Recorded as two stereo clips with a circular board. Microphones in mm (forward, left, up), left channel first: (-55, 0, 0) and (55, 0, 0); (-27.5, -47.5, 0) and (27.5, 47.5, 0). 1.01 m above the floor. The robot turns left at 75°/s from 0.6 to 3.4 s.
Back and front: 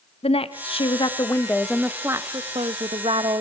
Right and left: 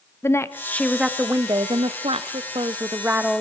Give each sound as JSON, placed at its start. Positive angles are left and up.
{"t": 0.2, "sound": "a woman speaking", "azimuth_deg": 175, "distance_m": 1.4}